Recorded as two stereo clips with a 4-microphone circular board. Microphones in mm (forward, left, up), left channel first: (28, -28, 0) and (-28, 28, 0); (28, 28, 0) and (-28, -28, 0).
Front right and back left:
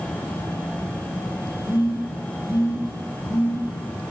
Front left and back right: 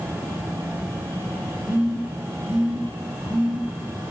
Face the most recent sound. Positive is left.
turn(degrees=-65)